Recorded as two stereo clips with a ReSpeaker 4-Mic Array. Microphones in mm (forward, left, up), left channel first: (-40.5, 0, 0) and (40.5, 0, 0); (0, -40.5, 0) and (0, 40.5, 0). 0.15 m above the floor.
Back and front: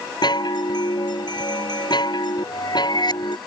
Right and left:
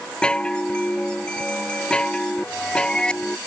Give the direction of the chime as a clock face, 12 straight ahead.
6 o'clock.